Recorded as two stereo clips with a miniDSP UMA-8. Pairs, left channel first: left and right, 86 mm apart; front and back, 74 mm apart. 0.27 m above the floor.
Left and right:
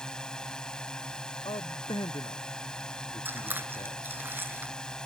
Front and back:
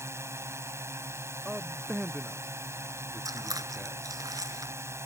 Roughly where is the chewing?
Behind right.